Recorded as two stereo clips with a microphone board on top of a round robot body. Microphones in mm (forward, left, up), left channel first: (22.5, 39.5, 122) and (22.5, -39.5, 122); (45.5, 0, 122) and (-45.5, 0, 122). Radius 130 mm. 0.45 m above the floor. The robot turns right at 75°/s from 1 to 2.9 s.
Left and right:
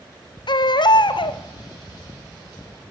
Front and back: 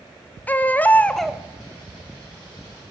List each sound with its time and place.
0.5 s a baby crying: 75° left, 1.4 m; by 1.4 s 105° left, 1.4 m